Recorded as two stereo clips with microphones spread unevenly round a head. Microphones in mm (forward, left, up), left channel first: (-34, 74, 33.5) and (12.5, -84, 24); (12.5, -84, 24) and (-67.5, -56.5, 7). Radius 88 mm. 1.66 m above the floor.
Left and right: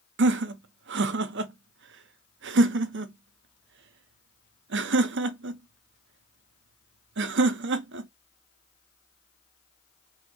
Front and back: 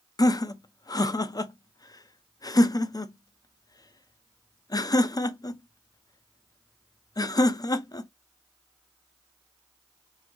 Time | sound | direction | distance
0.2 | laughter | 70° right | 0.6 m